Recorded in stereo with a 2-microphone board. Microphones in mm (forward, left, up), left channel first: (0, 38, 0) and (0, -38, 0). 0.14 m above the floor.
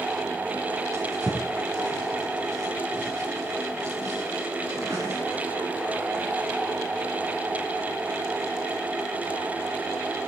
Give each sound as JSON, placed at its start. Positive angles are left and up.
{"t": 0.9, "sound": "a drawer", "side_deg": -50, "distance_m": 5.0}